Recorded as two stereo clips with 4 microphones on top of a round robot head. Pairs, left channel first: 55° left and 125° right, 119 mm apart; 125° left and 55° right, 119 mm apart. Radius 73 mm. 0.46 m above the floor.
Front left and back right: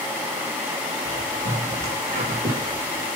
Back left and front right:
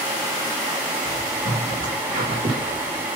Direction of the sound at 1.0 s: 95° right.